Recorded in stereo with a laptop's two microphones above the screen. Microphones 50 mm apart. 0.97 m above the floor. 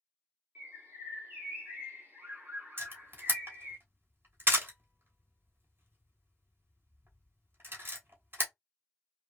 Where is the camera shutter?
45° right (ahead or behind), 1.3 m.